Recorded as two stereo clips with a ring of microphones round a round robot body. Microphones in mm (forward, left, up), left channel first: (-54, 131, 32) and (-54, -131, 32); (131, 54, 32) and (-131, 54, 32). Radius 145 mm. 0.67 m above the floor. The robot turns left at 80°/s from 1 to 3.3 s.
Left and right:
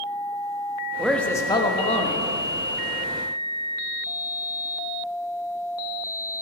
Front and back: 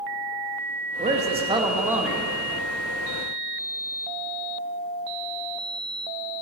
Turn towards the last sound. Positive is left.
turn(degrees=0)